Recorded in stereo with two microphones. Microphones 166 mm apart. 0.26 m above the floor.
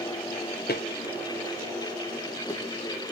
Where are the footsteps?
75° left (ahead or behind), 1.3 m; by 2.6 s 20° left (ahead or behind), 2.5 m.